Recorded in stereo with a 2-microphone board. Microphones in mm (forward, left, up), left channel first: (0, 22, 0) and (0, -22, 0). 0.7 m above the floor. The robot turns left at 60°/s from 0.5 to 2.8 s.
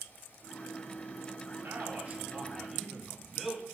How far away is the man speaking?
About 1.9 m.